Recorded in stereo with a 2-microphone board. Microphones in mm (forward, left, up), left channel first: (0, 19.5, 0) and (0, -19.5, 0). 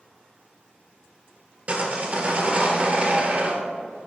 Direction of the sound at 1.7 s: 40° right (ahead or behind).